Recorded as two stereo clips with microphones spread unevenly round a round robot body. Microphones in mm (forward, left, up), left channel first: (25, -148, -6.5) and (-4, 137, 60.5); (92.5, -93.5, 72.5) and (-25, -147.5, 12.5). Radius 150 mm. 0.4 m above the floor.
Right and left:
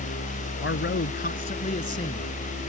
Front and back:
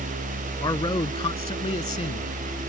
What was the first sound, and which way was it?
A man speaking, 30° right.